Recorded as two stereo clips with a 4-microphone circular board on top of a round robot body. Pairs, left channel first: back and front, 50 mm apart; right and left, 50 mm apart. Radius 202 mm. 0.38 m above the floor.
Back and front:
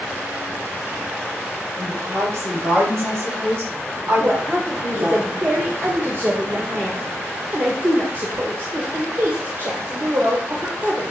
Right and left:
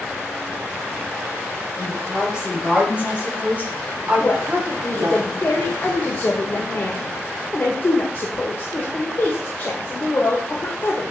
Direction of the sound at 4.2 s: 40° right.